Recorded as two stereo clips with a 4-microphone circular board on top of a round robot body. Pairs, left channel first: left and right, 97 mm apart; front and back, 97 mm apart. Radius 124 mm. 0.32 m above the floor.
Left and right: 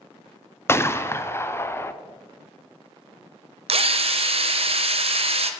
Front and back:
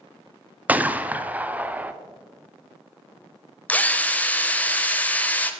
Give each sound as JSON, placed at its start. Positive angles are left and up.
{"t": 0.7, "sound": "a gunshot", "azimuth_deg": 120, "distance_m": 0.6}
{"t": 3.7, "sound": "a drill", "azimuth_deg": -75, "distance_m": 0.6}